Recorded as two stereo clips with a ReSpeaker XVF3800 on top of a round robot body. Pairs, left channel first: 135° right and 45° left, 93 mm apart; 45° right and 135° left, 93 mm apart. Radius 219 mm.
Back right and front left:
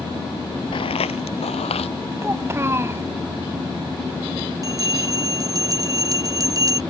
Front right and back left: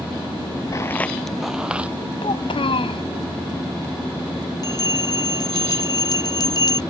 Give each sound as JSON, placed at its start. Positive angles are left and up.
{"t": 0.7, "sound": "footsteps", "azimuth_deg": -100}
{"t": 2.2, "sound": "a child speaking", "azimuth_deg": -20}
{"t": 4.6, "sound": "a bell", "azimuth_deg": -5}